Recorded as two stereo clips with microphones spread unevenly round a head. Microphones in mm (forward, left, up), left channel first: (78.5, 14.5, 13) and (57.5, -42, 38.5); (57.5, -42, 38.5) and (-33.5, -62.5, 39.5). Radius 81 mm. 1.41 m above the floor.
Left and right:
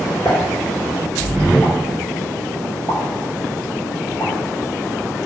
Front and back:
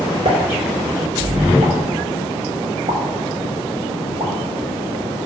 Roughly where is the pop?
Behind left.